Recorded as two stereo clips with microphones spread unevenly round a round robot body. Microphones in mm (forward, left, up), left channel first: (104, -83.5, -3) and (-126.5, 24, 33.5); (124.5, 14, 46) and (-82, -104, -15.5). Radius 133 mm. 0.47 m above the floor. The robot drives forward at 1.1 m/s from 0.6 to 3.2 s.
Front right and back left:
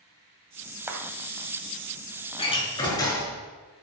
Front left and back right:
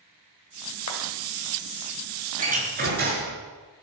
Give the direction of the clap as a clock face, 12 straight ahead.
10 o'clock.